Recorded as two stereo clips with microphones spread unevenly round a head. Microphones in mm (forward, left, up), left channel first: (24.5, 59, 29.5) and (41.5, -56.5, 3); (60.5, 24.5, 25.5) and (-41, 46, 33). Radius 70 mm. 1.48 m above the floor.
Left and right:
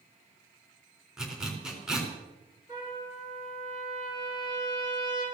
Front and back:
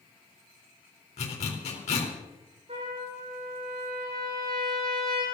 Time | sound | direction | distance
1.2 | a zipper | 5° left | 4 m
2.7 | a trumpet | 140° right | 6.5 m